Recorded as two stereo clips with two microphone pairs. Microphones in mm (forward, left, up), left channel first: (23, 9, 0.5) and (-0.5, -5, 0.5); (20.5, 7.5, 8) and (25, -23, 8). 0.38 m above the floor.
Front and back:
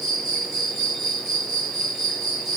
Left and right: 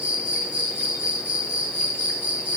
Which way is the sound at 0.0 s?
75° right.